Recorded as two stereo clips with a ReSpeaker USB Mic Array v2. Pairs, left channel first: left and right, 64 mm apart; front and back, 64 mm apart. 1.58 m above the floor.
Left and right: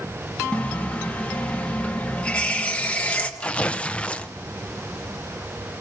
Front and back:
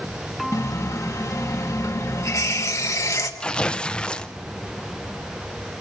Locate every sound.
0.5 s a running tap: 20° left, 1.2 m
3.4 s tearing paper: 55° left, 0.6 m